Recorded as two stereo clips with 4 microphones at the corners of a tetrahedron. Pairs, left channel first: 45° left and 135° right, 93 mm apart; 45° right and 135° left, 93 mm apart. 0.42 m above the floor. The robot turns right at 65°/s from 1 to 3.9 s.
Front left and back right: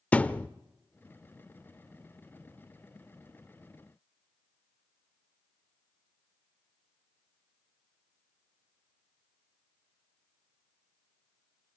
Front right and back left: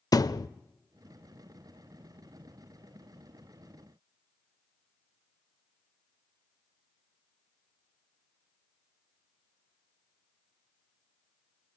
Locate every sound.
0.1 s a thud: 25° right, 0.6 m